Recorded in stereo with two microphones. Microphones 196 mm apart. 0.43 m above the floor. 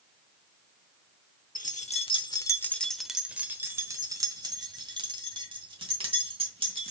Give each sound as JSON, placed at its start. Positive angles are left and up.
{"t": 1.6, "sound": "keys jangling", "side_deg": 40, "distance_m": 0.8}